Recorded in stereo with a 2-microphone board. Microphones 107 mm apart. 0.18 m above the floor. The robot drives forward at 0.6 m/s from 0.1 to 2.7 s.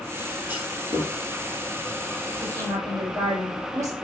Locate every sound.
0.5 s a clunk: 15° right (ahead or behind), 3 m; by 1.1 s 20° right (ahead or behind), 3 m
2.4 s a woman speaking: 30° right (ahead or behind), 5.5 m